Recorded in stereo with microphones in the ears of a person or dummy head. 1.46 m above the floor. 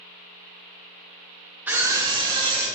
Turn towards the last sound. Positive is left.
turn(degrees=-35)  # may be behind; listen again after turning